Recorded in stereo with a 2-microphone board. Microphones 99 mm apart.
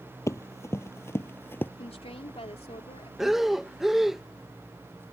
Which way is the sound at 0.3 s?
30° left (ahead or behind).